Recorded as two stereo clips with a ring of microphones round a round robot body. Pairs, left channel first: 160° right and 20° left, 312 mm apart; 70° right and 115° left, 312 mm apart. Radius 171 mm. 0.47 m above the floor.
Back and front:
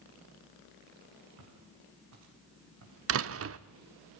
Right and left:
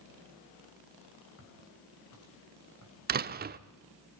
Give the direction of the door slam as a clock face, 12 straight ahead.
10 o'clock.